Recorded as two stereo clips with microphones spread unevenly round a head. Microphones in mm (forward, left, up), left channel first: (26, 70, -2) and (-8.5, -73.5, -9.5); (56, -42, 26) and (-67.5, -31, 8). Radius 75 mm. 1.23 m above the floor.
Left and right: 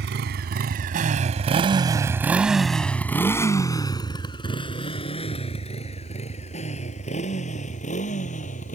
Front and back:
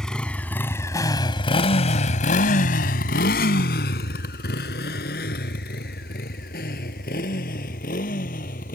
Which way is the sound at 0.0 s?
90° right.